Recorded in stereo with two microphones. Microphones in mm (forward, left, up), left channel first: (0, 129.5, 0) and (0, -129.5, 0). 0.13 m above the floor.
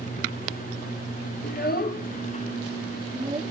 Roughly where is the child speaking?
Left.